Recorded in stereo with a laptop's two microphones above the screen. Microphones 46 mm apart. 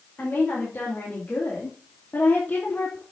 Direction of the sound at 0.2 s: 40° left (ahead or behind).